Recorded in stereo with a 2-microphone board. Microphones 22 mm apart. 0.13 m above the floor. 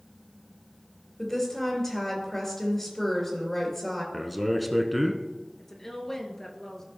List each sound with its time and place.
1.2 s a woman speaking: 15° left (ahead or behind), 3 m
4.1 s a man speaking: centre (ahead or behind), 1.1 m
5.6 s a woman speaking: 25° left (ahead or behind), 1.9 m